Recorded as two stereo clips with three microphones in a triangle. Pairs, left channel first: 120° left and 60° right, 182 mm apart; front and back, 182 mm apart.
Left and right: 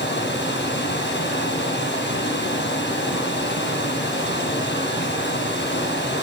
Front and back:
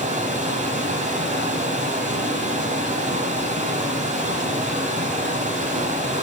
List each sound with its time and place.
0.0 s running water: 135° left, 4.5 m